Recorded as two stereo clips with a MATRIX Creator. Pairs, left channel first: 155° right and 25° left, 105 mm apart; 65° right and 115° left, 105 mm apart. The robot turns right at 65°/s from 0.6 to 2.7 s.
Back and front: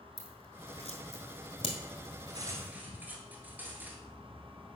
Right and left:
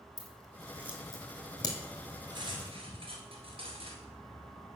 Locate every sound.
0.2 s scissors: 170° left, 1.6 m; by 1.8 s 115° right, 1.6 m
2.3 s cutlery clinking: 65° left, 1.5 m; by 4.0 s 95° left, 1.5 m